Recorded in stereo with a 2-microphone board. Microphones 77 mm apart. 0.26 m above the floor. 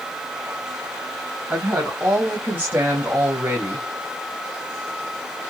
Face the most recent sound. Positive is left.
turn(degrees=-25)  # may be behind; listen again after turning